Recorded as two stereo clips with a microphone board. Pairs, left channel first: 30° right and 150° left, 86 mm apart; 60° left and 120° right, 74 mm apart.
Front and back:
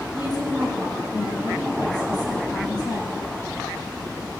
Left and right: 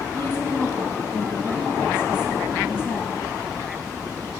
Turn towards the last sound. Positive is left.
turn(degrees=5)